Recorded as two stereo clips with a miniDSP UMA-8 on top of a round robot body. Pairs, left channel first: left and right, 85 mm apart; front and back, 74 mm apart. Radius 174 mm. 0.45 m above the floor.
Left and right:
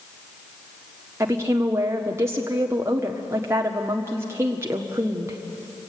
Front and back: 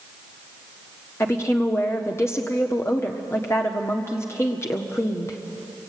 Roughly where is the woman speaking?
Ahead right.